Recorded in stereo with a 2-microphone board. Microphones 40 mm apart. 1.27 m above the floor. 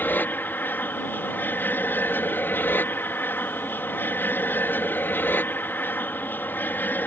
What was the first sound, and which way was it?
An aircraft, 55° left (ahead or behind).